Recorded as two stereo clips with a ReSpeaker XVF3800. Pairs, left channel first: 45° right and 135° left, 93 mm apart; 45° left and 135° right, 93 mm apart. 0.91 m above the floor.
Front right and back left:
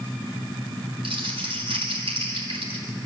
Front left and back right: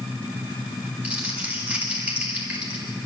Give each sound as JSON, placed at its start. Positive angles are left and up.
{"t": 1.0, "sound": "crumpling", "azimuth_deg": 150, "distance_m": 5.0}